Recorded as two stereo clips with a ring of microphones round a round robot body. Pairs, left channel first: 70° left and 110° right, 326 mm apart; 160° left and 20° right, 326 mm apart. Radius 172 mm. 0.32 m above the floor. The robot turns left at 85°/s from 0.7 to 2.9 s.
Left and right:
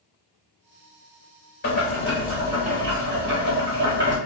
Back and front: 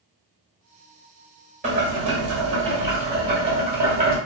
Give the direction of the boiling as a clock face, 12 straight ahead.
11 o'clock.